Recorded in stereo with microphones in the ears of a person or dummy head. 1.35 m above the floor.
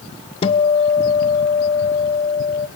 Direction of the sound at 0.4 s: 35° left (ahead or behind).